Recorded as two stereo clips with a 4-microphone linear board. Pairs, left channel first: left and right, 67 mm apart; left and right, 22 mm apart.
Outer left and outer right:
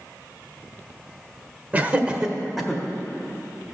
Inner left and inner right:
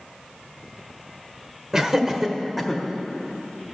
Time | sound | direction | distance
1.7 | laughter | 25° right (ahead or behind) | 1.0 m